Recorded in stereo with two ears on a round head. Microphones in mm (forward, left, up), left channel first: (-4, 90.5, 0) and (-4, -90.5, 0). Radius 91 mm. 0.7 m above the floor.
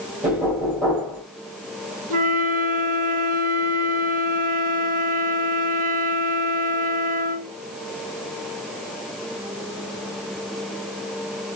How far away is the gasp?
I don't hear a gasp.